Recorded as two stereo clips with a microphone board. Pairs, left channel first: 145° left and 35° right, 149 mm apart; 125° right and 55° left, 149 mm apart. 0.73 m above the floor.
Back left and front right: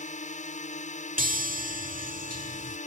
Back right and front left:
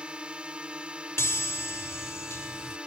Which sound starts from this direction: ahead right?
A chime, at 1.2 s.